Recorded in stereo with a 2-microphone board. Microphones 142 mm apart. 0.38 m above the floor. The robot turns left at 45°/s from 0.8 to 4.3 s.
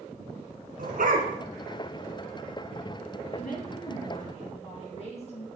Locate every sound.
0.8 s a dog barking: 80° right, 1.8 m; by 1.3 s 70° right (ahead or behind), 1.8 m
3.3 s a woman speaking: 95° left, 4.5 m; by 5.5 s 50° left, 4.5 m